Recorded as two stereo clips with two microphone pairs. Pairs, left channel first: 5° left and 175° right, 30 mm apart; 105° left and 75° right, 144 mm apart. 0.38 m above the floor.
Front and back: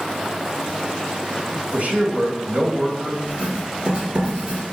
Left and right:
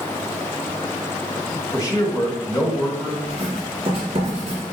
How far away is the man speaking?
About 2 m.